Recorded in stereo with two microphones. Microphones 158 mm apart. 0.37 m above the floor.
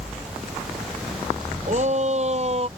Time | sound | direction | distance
1.7 | a shout | 50° right (ahead or behind) | ?